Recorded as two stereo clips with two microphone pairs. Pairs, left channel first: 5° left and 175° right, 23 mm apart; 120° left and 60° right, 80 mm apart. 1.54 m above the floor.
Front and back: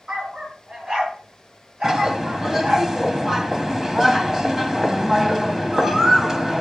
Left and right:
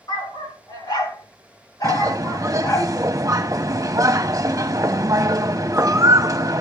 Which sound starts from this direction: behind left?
A dog barking, at 0.1 s.